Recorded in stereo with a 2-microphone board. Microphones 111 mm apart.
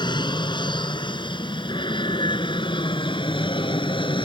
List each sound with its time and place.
0.0 s an aircraft: 45° left (ahead or behind); by 4.2 s 50° left (ahead or behind)